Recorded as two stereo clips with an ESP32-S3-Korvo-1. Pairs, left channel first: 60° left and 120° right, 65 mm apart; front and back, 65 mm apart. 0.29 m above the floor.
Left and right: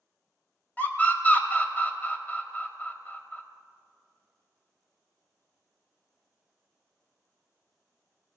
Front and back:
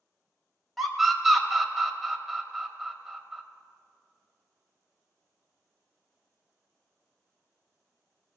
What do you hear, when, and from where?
0.8 s a scream: 90° left, 1.2 m